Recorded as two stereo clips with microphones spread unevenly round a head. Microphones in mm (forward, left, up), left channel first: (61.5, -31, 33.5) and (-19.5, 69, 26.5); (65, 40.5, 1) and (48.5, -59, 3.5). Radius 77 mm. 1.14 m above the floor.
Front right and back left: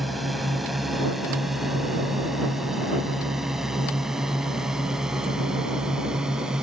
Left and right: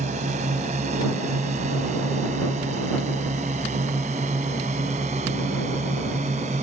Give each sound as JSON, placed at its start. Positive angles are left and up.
{"t": 0.0, "sound": "a drone", "azimuth_deg": -140}